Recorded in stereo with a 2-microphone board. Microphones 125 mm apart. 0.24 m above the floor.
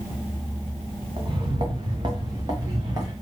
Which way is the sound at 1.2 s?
40° right (ahead or behind).